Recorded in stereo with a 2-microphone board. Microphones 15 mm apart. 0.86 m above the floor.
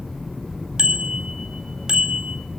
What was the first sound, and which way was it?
A bicycle bell, 60° right (ahead or behind).